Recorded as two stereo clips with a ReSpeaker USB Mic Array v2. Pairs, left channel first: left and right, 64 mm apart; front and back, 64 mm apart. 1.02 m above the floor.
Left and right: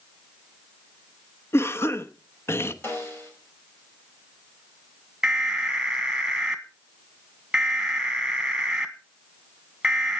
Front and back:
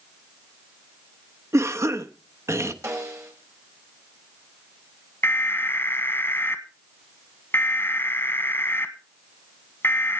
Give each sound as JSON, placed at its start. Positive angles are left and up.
{"t": 1.5, "sound": "a cough", "azimuth_deg": 140, "distance_m": 1.0}
{"t": 2.8, "sound": "a snare drum", "azimuth_deg": 145, "distance_m": 5.5}
{"t": 5.2, "sound": "an alarm", "azimuth_deg": -15, "distance_m": 1.5}